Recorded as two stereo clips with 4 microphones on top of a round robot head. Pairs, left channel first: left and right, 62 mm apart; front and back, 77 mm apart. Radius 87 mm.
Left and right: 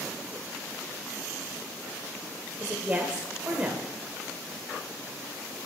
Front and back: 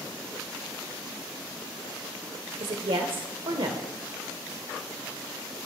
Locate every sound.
2.6 s a woman speaking: 160° right, 0.8 m